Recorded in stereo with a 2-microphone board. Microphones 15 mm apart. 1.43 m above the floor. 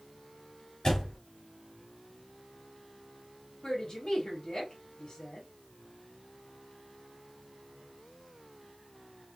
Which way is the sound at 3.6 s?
60° left (ahead or behind).